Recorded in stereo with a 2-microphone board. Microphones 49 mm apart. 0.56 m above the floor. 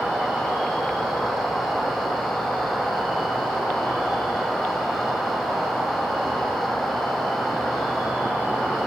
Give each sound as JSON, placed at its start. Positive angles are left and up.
{"t": 0.0, "sound": "an insect", "side_deg": 55, "distance_m": 1.2}